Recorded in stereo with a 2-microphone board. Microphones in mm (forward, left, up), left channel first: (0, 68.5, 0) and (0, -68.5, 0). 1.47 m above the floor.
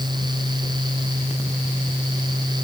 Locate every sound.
Only background noise.